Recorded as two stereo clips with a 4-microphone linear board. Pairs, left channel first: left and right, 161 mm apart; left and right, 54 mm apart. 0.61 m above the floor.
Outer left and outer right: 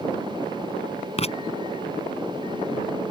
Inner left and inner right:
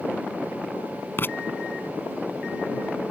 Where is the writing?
40° left (ahead or behind).